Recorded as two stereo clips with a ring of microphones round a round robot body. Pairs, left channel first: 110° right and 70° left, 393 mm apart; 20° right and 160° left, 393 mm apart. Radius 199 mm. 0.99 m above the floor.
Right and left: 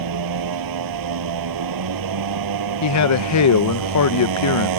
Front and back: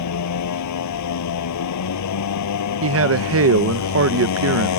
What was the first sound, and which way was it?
A motorcycle, 25° left.